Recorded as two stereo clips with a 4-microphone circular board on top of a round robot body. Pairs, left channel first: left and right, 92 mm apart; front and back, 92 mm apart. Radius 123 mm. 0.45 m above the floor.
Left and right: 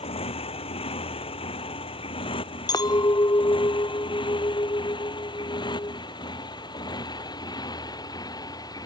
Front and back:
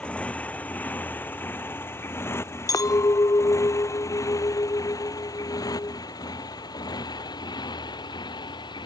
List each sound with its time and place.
0.0 s a motorcycle: 75° left; by 8.9 s 40° left
2.7 s a clink: 50° left